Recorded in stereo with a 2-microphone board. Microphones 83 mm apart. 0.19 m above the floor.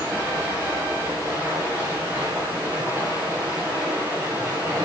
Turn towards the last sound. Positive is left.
turn(degrees=-25)  # may be behind; listen again after turning